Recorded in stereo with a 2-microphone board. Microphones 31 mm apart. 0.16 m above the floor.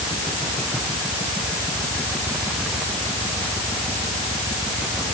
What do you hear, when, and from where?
Only background noise.